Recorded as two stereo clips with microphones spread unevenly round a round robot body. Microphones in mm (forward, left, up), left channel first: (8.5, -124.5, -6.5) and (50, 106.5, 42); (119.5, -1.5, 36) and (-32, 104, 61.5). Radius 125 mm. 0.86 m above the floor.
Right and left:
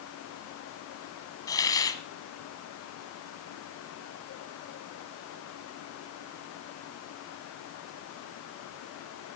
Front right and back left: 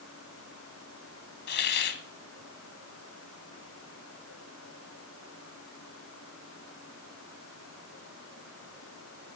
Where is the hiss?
15° right, 1.0 m.